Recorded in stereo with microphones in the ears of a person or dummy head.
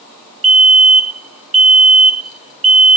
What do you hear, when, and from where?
0.4 s a fire alarm: 65° right (ahead or behind)